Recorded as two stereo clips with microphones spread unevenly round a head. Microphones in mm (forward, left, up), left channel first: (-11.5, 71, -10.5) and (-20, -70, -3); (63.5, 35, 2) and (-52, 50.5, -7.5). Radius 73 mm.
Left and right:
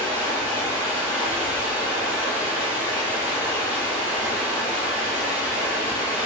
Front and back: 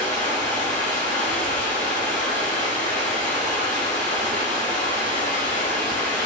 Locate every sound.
0.0 s running water: 15° right, 1.5 m